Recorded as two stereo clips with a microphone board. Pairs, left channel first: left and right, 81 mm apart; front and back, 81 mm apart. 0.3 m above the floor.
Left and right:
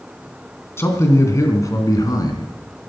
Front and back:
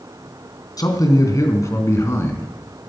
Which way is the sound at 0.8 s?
35° left.